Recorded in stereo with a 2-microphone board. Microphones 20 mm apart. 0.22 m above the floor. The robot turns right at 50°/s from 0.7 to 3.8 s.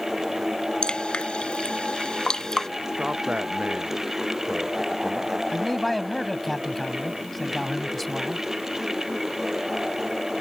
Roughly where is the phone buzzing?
I don't hear a phone buzzing.